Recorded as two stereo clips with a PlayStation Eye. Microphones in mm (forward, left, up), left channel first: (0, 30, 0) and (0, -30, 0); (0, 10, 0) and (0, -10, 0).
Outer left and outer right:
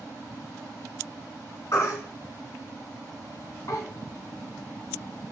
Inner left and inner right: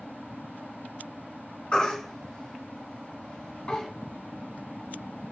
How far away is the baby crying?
About 1.0 m.